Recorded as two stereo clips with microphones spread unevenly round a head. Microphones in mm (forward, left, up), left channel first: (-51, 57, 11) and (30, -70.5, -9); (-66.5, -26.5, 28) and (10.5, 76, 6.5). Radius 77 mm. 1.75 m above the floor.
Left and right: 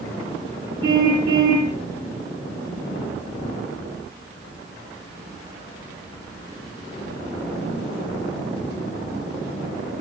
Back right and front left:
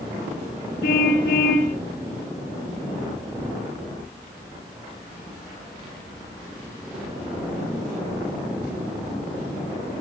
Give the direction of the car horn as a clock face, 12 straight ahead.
4 o'clock.